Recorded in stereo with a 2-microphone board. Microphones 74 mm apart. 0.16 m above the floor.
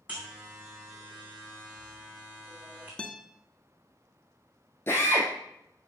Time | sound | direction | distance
0.1 | a buzzer | 20° right (ahead or behind) | 3 m
3.0 | a guitar | 10° left (ahead or behind) | 0.8 m
4.9 | a drill | 35° left (ahead or behind) | 3 m